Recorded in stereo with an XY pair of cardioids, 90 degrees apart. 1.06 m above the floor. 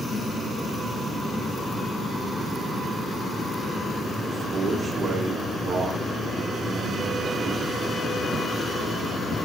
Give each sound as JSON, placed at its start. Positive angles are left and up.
{"t": 4.3, "sound": "a man speaking", "azimuth_deg": -45, "distance_m": 2.0}